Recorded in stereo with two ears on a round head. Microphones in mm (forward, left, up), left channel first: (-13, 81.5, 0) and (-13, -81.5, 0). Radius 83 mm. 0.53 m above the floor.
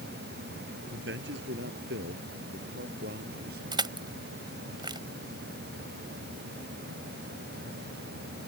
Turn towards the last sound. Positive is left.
turn(degrees=-25)  # may be behind; listen again after turning